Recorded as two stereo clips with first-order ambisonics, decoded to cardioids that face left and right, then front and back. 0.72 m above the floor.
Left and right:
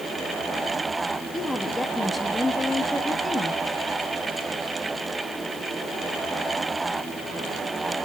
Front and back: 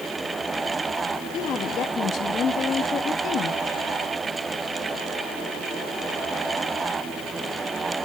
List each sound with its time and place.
1.3 s a woman speaking: 10° left, 1.0 m